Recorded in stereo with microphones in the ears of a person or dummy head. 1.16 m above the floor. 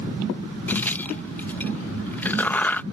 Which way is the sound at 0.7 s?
5° left (ahead or behind).